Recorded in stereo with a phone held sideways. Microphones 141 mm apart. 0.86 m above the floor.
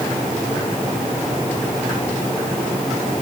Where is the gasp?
No gasp in this recording.